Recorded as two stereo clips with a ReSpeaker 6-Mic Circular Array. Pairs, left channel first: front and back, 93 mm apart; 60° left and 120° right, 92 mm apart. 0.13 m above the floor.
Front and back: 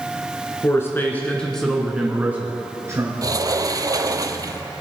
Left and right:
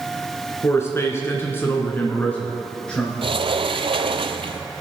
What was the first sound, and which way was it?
A man speaking, 25° left.